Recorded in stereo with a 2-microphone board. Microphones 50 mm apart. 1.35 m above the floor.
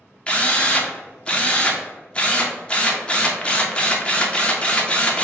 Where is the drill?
20° left (ahead or behind), 0.6 m.